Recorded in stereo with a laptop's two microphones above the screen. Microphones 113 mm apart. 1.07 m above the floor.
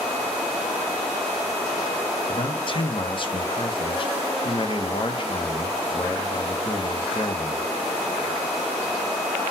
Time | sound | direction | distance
2.3 | a man speaking | 45° left (ahead or behind) | 0.7 m